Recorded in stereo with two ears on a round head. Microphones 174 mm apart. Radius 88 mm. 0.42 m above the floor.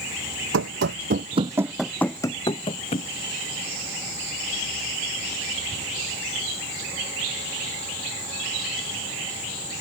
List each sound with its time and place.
0.5 s running footsteps: 70° right (ahead or behind); by 3.1 s 30° left (ahead or behind)